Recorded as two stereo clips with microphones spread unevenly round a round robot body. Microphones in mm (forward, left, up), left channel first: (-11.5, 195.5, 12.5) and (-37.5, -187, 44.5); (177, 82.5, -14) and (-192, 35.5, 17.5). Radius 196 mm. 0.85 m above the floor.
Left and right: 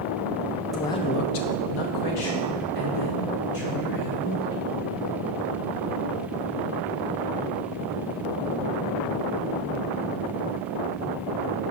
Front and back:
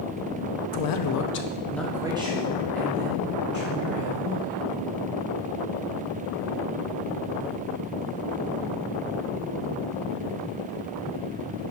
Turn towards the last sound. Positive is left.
turn(degrees=125)